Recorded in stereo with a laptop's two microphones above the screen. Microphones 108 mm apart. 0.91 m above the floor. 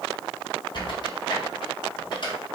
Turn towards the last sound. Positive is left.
turn(degrees=50)  # may be behind; listen again after turning